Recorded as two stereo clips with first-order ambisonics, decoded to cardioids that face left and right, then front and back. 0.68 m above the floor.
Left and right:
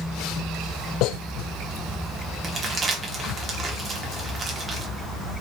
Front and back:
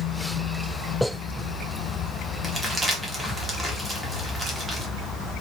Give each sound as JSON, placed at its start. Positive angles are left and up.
{"t": 2.4, "sound": "crumpling", "azimuth_deg": -120, "distance_m": 0.6}